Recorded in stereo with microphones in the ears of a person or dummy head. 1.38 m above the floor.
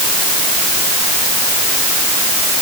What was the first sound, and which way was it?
Only background noise.